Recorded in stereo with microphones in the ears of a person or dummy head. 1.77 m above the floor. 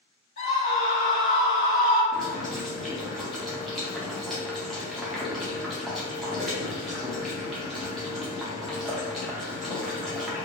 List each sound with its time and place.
0.4 s a scream: 55° left (ahead or behind), 1.4 m
2.1 s boiling: centre (ahead or behind), 1.0 m